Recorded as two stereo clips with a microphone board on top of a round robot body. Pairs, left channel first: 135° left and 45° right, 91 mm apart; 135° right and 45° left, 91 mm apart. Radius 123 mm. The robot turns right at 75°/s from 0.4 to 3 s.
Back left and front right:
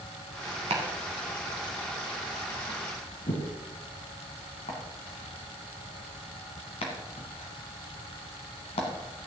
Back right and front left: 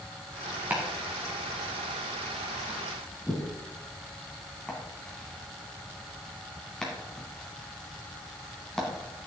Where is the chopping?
30° right, 1.5 m; by 8.9 s 140° left, 1.5 m.